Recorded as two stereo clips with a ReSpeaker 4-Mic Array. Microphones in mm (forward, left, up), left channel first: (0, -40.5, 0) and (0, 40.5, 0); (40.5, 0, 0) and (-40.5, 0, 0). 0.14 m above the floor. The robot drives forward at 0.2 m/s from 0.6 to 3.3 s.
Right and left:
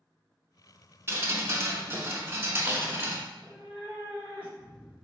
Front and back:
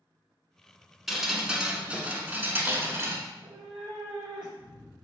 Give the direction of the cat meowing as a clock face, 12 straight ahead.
5 o'clock.